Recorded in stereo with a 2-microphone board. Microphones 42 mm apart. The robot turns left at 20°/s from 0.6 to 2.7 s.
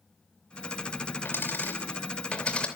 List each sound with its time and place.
1.2 s a dropped coin: 55° left (ahead or behind), 3 m; by 2.7 s 25° left (ahead or behind), 3 m